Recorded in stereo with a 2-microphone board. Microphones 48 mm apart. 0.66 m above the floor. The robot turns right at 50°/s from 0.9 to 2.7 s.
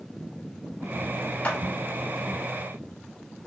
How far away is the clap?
About 0.9 m.